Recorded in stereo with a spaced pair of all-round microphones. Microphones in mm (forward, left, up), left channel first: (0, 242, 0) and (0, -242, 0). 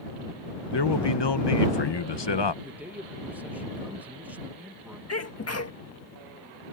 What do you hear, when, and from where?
0.7 s a man speaking: 60° left (ahead or behind)
2.6 s a man speaking: 5° right (ahead or behind)
5.1 s a sneeze: 30° left (ahead or behind)